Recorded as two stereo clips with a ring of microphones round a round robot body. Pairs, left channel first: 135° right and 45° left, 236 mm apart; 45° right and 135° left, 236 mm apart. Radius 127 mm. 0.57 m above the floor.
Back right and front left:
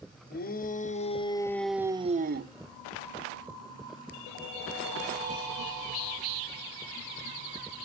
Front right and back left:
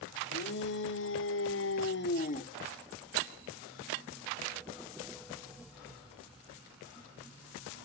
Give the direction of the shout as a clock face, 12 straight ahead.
3 o'clock.